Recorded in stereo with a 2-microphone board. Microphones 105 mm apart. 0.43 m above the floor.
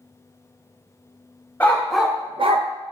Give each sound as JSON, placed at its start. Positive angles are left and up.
{"t": 1.6, "sound": "a dog barking", "side_deg": 15, "distance_m": 0.9}